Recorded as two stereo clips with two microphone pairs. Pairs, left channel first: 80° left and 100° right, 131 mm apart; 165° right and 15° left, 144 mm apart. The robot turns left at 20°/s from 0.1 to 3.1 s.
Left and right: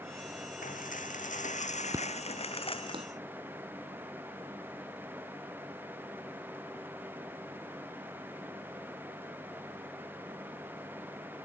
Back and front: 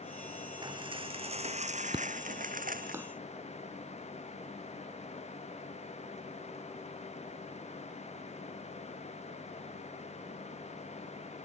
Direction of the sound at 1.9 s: 35° right.